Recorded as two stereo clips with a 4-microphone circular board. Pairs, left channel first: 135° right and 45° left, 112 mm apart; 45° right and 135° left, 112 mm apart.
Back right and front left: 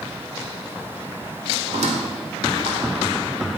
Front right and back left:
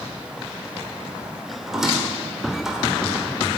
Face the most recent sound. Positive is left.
turn(degrees=50)